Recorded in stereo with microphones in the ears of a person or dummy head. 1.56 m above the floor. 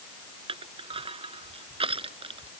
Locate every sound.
0.5 s crushing: 30° right (ahead or behind)